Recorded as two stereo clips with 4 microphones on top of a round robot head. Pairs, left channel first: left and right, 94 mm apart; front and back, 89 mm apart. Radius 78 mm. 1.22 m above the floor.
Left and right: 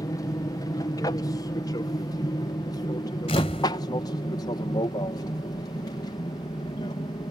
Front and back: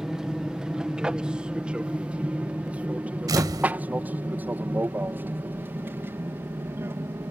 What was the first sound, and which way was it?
An aircraft, 100° left.